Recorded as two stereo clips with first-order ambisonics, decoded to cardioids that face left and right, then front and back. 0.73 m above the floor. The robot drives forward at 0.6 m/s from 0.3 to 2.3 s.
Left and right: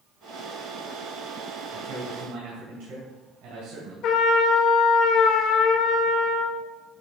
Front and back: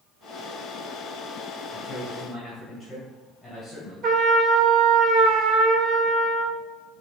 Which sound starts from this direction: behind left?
A trumpet, at 4.0 s.